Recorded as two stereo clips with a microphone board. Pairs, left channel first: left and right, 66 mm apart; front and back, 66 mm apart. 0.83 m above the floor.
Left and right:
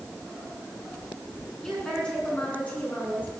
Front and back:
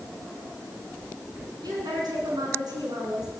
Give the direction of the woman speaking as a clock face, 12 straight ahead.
6 o'clock.